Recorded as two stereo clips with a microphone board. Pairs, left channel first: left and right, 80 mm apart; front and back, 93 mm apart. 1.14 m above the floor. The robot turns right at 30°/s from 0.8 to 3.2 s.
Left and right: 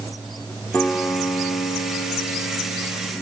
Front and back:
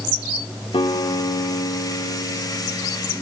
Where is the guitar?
20° left, 2.0 m; by 3.1 s 90° left, 2.0 m.